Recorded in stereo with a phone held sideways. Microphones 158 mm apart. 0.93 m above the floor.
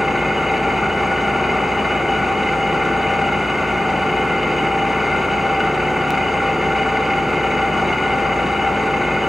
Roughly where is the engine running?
Centre.